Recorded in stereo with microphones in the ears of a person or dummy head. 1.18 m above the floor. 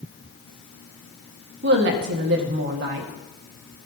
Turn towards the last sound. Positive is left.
turn(degrees=-60)  # may be behind; listen again after turning